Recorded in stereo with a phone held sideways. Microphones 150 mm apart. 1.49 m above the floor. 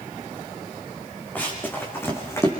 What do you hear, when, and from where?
1.4 s running footsteps: 10° left (ahead or behind), 5.5 m; by 2.5 s 20° left (ahead or behind), 5 m